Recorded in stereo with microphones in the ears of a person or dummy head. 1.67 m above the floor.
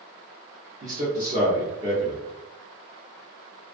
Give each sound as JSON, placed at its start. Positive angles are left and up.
{"t": 0.8, "sound": "a man speaking", "side_deg": -25, "distance_m": 0.7}